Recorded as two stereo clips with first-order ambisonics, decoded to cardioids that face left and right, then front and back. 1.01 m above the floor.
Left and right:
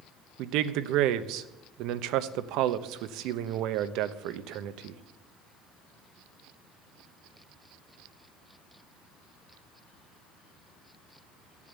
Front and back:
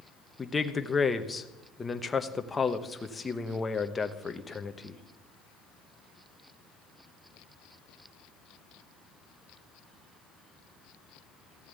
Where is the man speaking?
75° right, 0.9 m.